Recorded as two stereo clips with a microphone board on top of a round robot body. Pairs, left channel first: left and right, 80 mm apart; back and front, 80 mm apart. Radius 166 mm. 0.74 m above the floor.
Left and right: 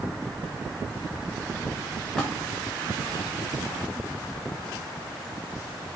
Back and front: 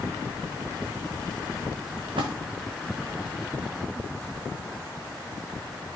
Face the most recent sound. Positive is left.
turn(degrees=10)